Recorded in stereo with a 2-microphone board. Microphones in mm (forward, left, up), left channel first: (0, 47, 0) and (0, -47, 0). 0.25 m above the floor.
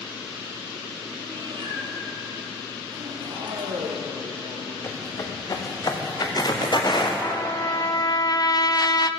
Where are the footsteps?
35° left (ahead or behind), 3.5 m; by 7.1 s 55° left (ahead or behind), 4 m.